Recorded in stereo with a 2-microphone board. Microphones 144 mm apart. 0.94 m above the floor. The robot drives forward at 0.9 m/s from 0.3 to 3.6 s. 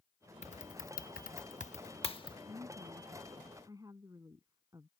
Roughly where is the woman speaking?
Right.